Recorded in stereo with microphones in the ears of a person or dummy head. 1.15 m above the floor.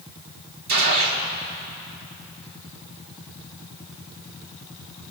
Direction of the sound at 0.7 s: 50° right (ahead or behind).